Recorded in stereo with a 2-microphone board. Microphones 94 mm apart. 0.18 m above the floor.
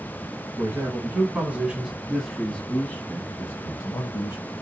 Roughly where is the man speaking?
Right.